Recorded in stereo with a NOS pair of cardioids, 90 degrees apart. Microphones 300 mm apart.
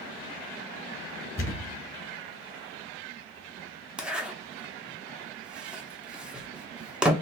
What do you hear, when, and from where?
1.4 s a thud: 25° left, 1.9 m
4.0 s a zipper: 5° right, 0.7 m